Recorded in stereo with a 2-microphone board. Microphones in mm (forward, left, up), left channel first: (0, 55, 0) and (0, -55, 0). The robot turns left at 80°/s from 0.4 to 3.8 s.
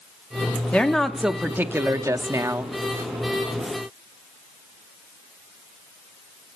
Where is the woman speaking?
15° left (ahead or behind), 0.7 m; by 2.7 s 20° right (ahead or behind), 0.7 m.